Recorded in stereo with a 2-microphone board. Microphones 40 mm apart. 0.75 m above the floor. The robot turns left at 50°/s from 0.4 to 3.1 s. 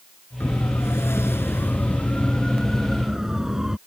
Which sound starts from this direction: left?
A siren, at 0.4 s.